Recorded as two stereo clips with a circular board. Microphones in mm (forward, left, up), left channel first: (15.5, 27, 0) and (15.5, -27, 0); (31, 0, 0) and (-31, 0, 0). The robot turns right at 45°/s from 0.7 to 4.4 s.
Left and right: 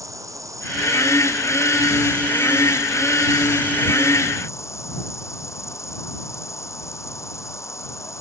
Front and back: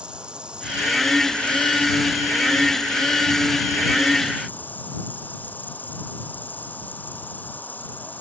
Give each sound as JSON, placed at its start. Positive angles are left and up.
{"t": 0.0, "sound": "an insect", "azimuth_deg": -105}